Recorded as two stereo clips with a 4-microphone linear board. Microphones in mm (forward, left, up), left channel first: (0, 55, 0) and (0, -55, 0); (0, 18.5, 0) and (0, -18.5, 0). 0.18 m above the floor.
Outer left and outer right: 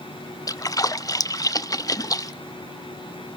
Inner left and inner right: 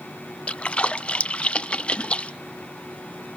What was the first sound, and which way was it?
A splash, 30° left (ahead or behind).